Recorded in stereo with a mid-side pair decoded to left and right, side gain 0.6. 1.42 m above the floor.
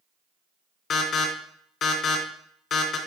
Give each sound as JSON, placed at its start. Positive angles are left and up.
{"t": 0.9, "sound": "an alarm", "azimuth_deg": 55, "distance_m": 2.5}